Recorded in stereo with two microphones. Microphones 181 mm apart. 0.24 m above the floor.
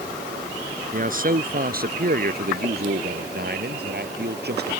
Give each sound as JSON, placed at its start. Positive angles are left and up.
{"t": 0.9, "sound": "a man speaking", "side_deg": -50}